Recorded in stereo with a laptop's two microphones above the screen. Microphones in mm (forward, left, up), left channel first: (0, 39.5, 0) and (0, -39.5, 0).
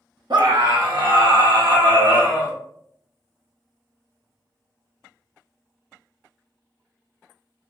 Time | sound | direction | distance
0.3 | a scream | 70° right (ahead or behind) | 1.1 m